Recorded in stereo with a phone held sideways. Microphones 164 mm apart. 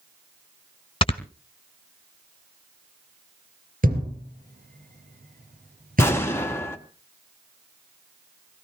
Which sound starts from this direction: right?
A thud, at 3.8 s.